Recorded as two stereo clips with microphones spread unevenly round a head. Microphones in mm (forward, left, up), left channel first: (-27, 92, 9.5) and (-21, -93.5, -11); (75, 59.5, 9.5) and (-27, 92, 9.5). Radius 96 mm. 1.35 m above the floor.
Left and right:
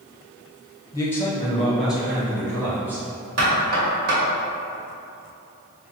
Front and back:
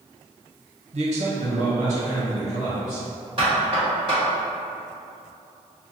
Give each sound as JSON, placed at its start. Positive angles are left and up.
{"t": 0.9, "sound": "a man speaking", "azimuth_deg": 165, "distance_m": 0.7}
{"t": 3.4, "sound": "knocking", "azimuth_deg": -130, "distance_m": 1.7}